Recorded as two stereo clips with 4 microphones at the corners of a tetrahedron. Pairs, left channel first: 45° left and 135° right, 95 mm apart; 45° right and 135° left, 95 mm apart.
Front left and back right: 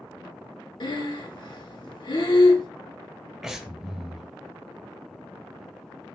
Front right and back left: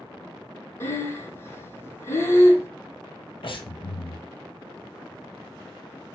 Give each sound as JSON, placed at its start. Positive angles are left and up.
{"t": 0.8, "sound": "breathing", "azimuth_deg": 15, "distance_m": 0.9}
{"t": 3.4, "sound": "breathing", "azimuth_deg": -50, "distance_m": 0.8}